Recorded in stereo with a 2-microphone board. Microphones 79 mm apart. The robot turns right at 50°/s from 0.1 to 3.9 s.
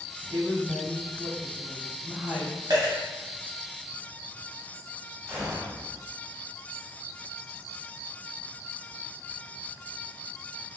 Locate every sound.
0.3 s a woman speaking: 120° right, 2.0 m; by 2.6 s 5° right, 2.0 m
2.7 s a dropped coin: 55° right (ahead or behind), 1.5 m
5.3 s a gunshot: centre (ahead or behind), 1.4 m